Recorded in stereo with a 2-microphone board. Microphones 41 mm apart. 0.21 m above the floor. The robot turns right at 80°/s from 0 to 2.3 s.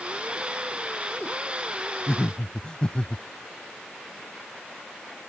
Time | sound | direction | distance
2.1 | laughter | 25° left (ahead or behind) | ?